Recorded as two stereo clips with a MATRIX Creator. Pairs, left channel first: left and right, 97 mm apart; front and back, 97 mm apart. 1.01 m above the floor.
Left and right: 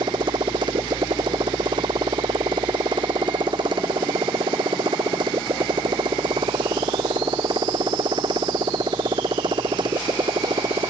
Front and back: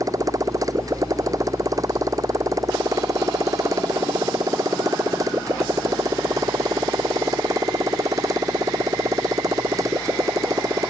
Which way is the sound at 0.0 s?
130° right.